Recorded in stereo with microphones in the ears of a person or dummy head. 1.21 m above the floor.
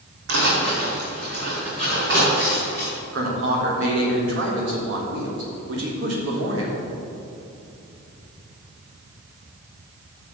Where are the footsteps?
65° right (ahead or behind), 3 m; by 2.9 s 60° right (ahead or behind), 5 m.